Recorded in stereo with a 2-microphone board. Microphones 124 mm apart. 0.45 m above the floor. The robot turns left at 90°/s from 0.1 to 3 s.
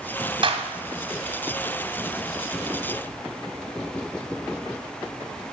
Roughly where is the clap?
Right.